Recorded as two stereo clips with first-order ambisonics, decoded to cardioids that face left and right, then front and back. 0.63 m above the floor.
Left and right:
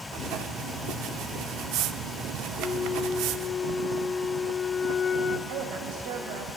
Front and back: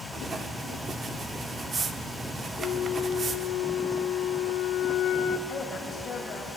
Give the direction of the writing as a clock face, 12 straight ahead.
4 o'clock.